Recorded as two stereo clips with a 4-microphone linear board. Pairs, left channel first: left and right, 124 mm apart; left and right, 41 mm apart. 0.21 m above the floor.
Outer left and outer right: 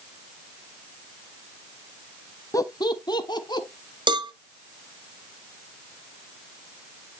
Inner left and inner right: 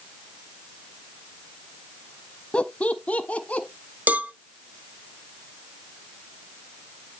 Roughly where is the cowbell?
Right.